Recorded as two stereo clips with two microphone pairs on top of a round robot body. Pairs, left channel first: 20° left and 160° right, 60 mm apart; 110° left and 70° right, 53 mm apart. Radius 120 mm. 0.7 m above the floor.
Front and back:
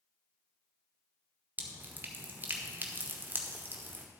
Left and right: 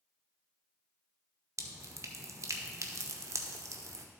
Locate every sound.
1.6 s dripping: 100° right, 1.1 m